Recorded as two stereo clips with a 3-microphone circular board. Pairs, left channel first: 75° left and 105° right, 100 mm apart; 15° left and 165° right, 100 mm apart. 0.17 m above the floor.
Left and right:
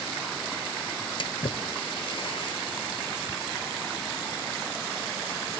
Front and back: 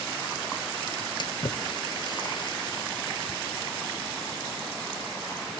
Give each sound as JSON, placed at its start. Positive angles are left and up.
{"t": 1.2, "sound": "a splash", "azimuth_deg": 50}